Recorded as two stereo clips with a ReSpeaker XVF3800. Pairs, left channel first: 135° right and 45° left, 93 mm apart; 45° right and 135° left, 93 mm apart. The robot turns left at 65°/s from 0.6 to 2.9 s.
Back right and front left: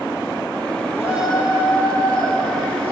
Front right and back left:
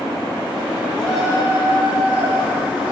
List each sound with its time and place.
1.0 s a shout: 125° right, 9 m; by 2.9 s 105° left, 9 m